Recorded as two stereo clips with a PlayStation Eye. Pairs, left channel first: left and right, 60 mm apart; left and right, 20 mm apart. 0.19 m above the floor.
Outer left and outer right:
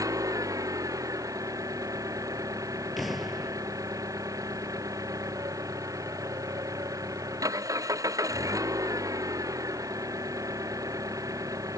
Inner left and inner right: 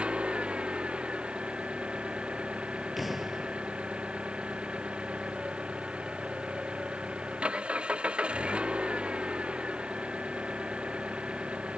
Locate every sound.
0.0 s an engine running: 70° right (ahead or behind)
3.0 s an explosion: centre (ahead or behind)